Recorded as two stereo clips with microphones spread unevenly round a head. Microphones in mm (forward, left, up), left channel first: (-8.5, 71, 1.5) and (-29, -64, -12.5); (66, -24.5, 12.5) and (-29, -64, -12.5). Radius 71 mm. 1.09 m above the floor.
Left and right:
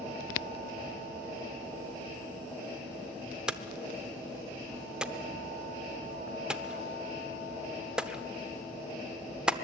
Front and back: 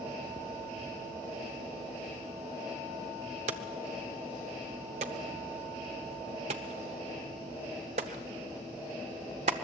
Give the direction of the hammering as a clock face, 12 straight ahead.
6 o'clock.